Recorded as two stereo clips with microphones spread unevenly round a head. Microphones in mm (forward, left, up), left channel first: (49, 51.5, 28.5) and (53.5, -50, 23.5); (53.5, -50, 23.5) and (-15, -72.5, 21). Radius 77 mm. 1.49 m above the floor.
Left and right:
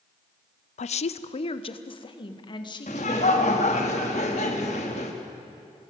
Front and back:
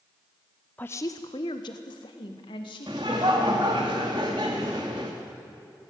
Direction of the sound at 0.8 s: 95° left.